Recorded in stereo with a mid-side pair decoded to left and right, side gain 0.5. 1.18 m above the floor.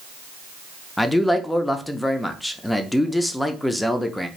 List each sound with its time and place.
1.0 s a man speaking: 5° left, 0.5 m